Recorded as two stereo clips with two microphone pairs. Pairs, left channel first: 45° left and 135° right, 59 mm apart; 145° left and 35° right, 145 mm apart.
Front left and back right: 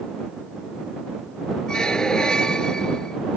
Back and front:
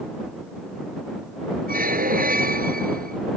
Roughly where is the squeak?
Ahead right.